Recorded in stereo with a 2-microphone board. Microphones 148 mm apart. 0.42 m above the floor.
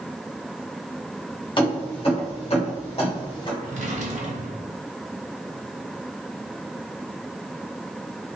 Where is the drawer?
60° right (ahead or behind), 0.7 m.